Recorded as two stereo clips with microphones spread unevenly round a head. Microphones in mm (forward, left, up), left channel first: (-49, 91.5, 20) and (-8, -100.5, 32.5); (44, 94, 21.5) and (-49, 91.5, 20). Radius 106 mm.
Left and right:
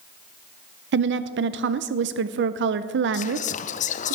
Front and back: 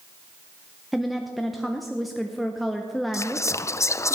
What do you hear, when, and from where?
0.9 s a woman speaking: 90° right, 0.5 m
3.1 s whispering: 60° left, 0.5 m